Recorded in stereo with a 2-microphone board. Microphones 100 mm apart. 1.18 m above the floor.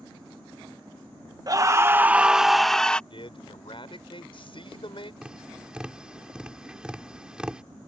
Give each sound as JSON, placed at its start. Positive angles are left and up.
{"t": 1.5, "sound": "a scream", "side_deg": -40}
{"t": 3.1, "sound": "a man speaking", "side_deg": 60}
{"t": 5.2, "sound": "tapping", "side_deg": -10}